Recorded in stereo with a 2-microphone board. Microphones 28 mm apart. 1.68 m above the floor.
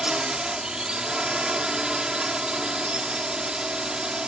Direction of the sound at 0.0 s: 30° right (ahead or behind).